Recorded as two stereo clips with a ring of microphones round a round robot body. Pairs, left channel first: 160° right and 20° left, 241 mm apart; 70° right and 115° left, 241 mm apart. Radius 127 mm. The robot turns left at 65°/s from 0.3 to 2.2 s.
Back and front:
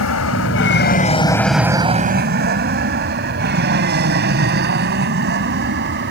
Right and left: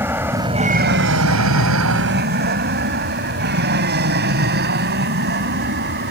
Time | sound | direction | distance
0.0 | an aircraft | 165° right | ?